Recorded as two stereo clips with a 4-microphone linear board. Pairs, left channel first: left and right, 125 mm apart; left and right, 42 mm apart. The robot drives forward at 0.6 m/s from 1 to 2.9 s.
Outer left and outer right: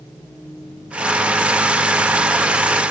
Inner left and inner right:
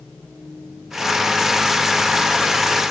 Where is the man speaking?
I don't hear a man speaking.